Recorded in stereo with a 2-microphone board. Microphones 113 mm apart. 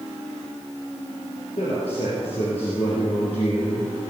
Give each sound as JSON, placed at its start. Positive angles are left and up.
{"t": 1.6, "sound": "a man speaking", "side_deg": 60, "distance_m": 3.5}